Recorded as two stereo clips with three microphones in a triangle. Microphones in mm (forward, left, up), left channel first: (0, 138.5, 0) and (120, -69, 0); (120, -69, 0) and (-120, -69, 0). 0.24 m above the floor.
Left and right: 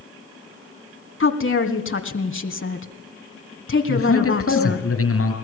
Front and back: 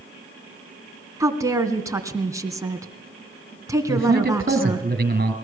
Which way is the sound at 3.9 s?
130° left.